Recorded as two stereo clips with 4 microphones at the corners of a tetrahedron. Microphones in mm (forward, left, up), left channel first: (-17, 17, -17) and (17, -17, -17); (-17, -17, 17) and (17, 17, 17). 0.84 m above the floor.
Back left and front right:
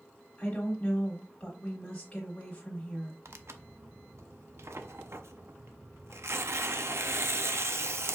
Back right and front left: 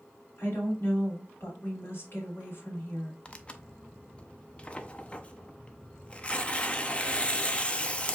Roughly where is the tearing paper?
Right.